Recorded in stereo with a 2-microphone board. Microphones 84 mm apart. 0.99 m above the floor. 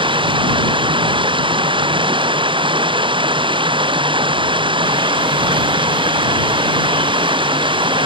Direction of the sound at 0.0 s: 85° right.